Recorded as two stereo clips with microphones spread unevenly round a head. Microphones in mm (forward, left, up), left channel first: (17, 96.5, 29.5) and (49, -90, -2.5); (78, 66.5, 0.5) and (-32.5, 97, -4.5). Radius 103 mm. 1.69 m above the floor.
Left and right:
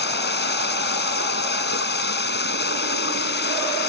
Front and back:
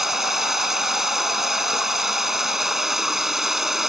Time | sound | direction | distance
0.0 | running water | 75° left | ?